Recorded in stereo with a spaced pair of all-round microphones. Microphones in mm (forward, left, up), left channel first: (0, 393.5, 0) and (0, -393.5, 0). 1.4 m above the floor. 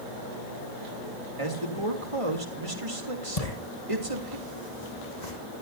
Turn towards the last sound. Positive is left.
turn(degrees=60)  # may be behind; listen again after turning